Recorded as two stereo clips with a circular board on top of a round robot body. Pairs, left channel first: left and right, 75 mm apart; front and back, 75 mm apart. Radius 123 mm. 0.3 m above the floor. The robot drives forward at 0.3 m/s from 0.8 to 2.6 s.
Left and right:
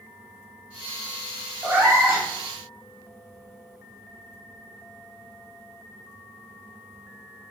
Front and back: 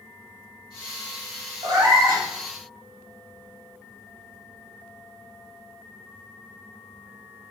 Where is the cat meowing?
160° right, 1.2 m.